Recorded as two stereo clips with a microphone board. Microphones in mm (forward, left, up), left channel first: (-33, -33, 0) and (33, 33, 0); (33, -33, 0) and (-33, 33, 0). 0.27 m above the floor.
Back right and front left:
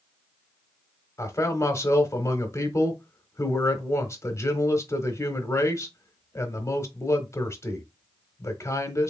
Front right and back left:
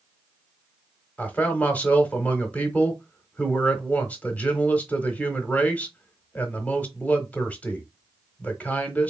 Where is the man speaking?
105° right, 1.2 m.